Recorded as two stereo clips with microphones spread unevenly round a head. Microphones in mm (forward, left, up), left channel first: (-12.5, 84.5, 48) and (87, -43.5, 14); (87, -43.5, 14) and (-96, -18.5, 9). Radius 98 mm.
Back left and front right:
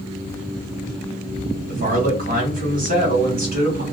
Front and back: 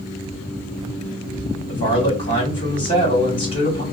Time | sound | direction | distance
1.7 | a man speaking | 70° right | 1.7 m